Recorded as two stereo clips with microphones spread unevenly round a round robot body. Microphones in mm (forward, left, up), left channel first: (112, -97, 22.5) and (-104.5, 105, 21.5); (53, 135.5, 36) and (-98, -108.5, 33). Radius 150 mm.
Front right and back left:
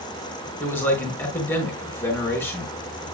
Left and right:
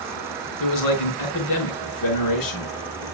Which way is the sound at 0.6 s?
40° left.